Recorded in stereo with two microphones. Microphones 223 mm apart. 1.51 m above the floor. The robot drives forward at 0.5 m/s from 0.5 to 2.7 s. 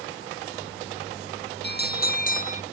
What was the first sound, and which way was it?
A bell, 45° left (ahead or behind).